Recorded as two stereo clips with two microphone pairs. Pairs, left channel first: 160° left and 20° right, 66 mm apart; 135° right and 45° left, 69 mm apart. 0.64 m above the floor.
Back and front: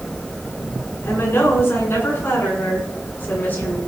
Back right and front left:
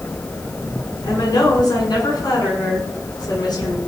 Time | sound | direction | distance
1.0 | a woman speaking | 150° right | 8.5 m